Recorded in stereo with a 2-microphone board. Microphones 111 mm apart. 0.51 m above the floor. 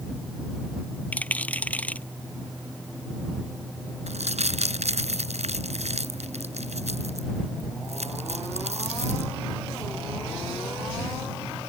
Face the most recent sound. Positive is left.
turn(degrees=-80)